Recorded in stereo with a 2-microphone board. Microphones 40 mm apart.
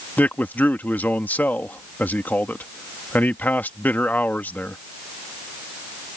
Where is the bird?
I don't hear a bird.